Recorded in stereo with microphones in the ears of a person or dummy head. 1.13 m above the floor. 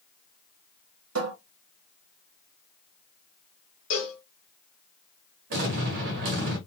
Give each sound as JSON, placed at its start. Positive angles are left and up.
{"t": 1.1, "sound": "a cupboard door", "side_deg": -70, "distance_m": 0.8}
{"t": 3.9, "sound": "a cowbell", "side_deg": 60, "distance_m": 1.3}
{"t": 5.5, "sound": "an explosion", "side_deg": -50, "distance_m": 1.2}